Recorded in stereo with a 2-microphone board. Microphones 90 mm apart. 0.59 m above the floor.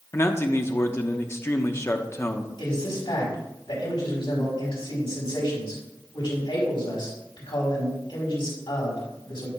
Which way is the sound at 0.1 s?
30° left (ahead or behind).